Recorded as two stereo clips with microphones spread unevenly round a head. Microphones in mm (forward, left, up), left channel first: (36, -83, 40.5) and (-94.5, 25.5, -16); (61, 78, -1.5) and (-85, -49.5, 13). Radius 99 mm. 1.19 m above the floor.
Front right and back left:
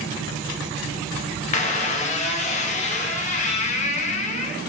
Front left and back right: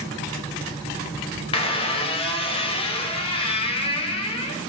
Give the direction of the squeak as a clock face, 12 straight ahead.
1 o'clock.